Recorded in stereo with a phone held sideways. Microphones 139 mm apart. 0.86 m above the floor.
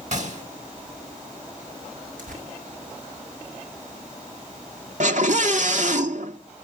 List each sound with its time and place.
0.1 s a gunshot: 60° right (ahead or behind), 3.5 m
2.2 s tearing paper: 70° right (ahead or behind), 6 m
5.0 s a scream: 60° right (ahead or behind), 1.9 m